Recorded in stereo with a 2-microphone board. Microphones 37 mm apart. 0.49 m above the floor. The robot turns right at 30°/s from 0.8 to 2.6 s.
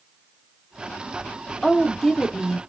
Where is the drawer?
No drawer in this recording.